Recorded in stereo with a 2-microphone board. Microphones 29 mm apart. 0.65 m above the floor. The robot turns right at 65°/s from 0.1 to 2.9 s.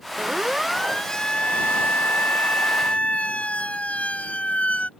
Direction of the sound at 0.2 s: 35° right (ahead or behind).